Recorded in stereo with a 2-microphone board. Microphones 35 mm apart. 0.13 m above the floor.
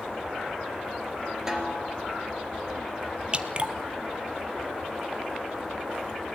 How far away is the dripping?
About 0.9 m.